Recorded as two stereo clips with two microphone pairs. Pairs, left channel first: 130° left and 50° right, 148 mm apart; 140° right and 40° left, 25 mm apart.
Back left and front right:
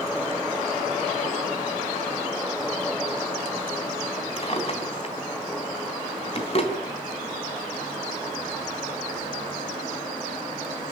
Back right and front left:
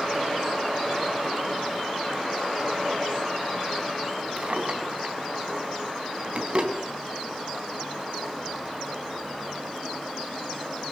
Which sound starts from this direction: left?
A drawer, at 4.4 s.